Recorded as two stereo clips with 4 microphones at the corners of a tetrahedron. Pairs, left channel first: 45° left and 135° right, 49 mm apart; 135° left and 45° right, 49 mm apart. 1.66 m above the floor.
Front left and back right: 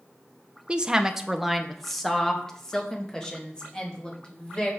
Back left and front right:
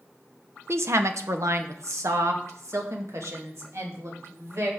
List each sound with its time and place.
0.7 s a woman speaking: 70° right, 0.9 m; by 4.7 s 25° right, 3 m